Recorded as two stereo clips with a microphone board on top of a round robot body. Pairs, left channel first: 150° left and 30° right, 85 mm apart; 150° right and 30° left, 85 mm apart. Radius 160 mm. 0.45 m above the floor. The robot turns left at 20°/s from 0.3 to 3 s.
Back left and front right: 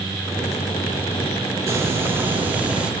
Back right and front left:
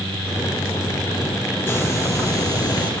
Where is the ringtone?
I don't hear a ringtone.